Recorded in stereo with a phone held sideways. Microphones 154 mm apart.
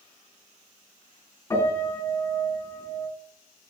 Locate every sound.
1.5 s a piano: 15° left (ahead or behind), 4.5 m